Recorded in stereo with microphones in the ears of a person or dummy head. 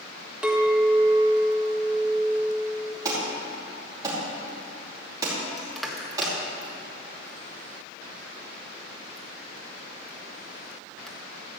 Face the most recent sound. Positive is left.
turn(degrees=5)  # may be behind; listen again after turning